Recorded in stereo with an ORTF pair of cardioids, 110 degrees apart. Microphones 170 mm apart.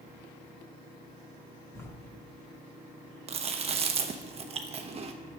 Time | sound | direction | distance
1.8 | writing | 15° left | 2 m
3.3 | chewing | 40° right | 0.9 m